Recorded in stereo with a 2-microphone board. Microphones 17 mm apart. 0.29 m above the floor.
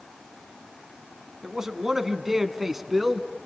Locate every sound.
1.4 s a man speaking: 35° right (ahead or behind), 2.5 m; by 3.3 s 10° right (ahead or behind), 2.5 m